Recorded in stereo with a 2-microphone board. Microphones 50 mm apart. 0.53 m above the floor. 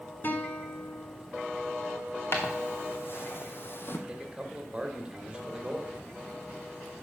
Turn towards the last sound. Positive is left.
turn(degrees=-20)  # may be behind; listen again after turning